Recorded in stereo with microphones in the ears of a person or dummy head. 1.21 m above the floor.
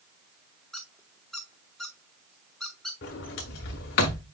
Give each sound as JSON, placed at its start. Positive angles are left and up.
{"t": 0.7, "sound": "a squeak", "side_deg": 5, "distance_m": 0.9}
{"t": 3.0, "sound": "a sliding door", "side_deg": 40, "distance_m": 1.1}